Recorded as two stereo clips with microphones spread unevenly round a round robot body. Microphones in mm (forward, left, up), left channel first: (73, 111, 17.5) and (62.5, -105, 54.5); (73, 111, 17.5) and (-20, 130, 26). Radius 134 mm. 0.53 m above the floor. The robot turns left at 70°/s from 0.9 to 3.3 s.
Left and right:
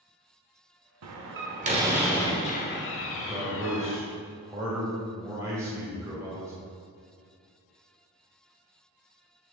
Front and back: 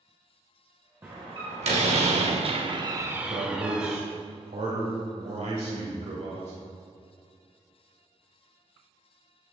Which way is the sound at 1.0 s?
115° right.